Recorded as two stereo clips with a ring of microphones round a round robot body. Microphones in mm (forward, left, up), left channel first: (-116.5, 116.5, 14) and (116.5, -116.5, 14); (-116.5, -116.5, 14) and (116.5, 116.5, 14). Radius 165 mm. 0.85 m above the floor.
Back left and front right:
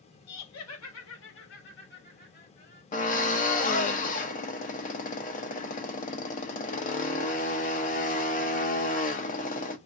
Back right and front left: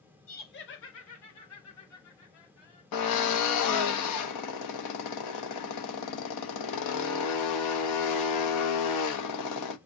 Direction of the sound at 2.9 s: 160° right.